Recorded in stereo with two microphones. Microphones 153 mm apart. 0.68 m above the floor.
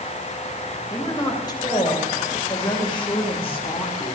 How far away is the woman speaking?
About 3 m.